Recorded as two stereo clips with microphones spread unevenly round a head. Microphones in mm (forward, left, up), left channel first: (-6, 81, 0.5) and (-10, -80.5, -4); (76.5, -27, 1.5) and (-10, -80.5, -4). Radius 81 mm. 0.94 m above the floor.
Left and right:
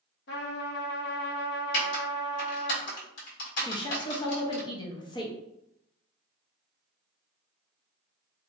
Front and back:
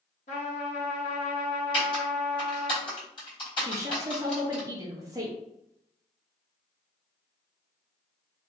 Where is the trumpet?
60° left, 0.8 m.